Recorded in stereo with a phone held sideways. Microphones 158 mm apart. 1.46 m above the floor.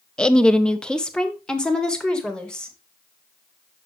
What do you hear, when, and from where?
0.2 s a woman speaking: 5° left (ahead or behind), 0.7 m